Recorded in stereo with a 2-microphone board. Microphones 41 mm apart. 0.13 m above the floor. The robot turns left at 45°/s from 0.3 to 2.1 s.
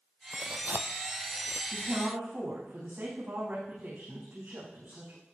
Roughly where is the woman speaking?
Right.